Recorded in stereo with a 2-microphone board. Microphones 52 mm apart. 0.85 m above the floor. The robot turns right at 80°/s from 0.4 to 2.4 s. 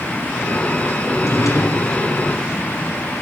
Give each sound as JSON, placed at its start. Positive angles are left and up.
{"t": 1.1, "sound": "a drawer", "azimuth_deg": 50, "distance_m": 3.5}